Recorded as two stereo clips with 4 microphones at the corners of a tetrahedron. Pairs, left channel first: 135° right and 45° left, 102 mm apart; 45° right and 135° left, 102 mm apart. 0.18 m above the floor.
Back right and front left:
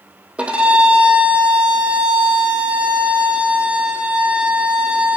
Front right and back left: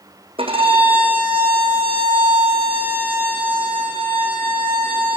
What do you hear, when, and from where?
0.4 s a violin: 125° left, 3 m